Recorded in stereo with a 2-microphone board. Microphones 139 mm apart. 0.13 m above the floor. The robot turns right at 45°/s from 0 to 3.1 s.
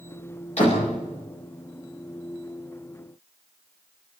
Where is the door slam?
50° left (ahead or behind), 9.5 m; by 0.9 s 65° left (ahead or behind), 9.5 m.